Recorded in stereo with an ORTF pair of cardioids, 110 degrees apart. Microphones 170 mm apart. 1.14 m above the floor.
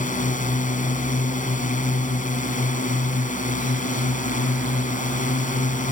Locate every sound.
0.0 s a drone: 50° left